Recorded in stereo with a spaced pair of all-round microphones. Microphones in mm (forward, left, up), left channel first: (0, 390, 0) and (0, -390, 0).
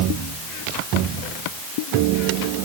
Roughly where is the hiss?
I don't hear a hiss.